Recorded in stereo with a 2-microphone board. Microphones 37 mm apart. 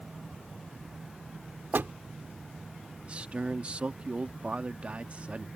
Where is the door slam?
70° right (ahead or behind).